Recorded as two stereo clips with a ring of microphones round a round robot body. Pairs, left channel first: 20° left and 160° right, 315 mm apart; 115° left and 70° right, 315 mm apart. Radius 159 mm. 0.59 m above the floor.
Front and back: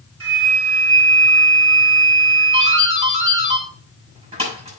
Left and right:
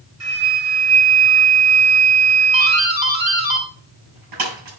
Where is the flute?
105° right, 5 m.